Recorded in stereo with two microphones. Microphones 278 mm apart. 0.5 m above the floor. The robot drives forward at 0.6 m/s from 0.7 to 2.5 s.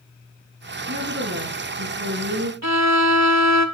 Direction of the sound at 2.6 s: 70° right (ahead or behind).